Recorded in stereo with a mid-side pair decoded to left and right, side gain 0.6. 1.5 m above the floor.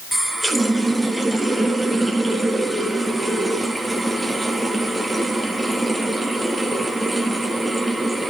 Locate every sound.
0.1 s a running tap: 10° right, 1.7 m